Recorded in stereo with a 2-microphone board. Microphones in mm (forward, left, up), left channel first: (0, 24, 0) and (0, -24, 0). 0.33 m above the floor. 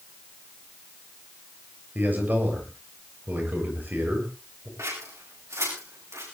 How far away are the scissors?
About 8.5 m.